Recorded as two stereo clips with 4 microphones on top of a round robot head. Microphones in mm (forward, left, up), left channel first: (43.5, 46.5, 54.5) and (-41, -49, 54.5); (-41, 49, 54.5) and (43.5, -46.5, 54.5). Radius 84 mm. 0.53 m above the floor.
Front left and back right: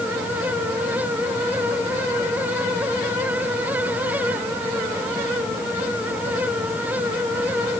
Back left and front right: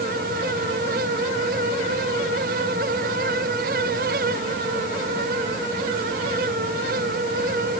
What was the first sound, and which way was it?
Only background noise.